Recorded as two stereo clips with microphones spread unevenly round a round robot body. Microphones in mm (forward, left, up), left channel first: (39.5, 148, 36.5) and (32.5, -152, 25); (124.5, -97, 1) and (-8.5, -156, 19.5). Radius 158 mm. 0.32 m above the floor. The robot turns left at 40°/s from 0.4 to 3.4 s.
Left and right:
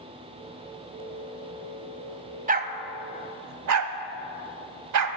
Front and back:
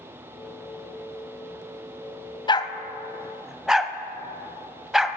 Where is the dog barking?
30° right, 0.8 m; by 5.2 s 65° right, 0.8 m.